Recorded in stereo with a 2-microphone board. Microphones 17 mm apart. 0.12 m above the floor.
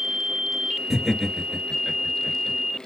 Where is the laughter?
10° left (ahead or behind), 1.9 m.